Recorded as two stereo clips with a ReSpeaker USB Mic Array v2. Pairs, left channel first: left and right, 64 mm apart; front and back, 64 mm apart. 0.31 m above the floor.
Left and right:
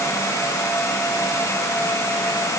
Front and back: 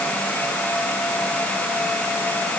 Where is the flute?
No flute in this recording.